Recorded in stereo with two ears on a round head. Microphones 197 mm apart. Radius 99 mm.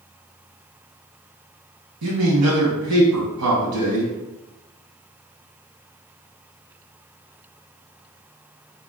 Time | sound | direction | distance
2.0 | a man speaking | 85° right | 1.5 m